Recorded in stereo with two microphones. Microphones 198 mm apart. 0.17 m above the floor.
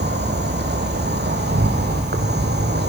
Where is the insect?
60° right (ahead or behind), 2.5 m.